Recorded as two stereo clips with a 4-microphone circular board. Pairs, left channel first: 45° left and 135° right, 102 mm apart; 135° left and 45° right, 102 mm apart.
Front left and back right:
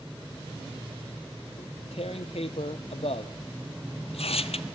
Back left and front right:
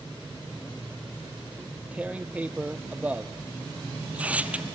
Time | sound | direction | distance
1.6 | tearing paper | 30° left | 0.9 m